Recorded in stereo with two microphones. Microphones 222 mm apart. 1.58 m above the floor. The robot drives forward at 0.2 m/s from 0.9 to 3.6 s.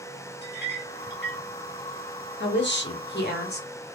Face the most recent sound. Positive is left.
turn(degrees=45)  # may be behind; listen again after turning